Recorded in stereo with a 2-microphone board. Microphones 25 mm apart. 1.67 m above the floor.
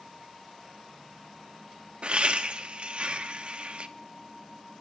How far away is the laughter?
About 0.9 m.